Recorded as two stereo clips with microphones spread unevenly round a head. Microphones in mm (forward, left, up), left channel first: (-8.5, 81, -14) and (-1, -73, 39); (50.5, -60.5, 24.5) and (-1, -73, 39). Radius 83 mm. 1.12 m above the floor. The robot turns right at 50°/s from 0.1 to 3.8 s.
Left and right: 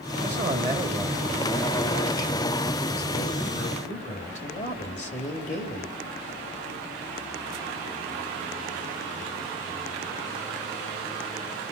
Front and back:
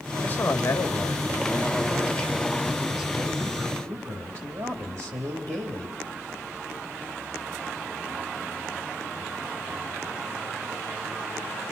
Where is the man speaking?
50° right, 3 m; by 5.9 s 130° left, 3 m.